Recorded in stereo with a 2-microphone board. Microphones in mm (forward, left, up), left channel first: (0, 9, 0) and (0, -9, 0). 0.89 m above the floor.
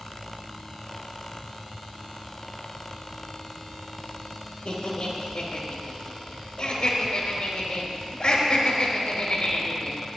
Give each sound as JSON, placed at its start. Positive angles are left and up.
{"t": 4.7, "sound": "laughter", "side_deg": 60, "distance_m": 3.0}